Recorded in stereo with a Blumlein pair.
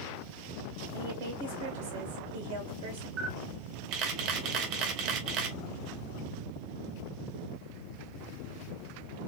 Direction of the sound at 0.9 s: 50° right.